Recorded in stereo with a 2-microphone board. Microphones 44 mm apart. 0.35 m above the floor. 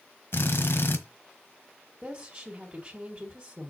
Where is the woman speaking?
35° right (ahead or behind), 1.8 m.